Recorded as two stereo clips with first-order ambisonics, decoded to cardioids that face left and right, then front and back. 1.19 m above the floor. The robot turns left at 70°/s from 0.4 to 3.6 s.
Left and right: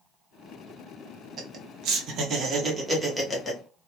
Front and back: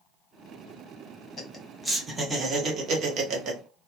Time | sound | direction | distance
1.4 | laughter | 55° right | 0.7 m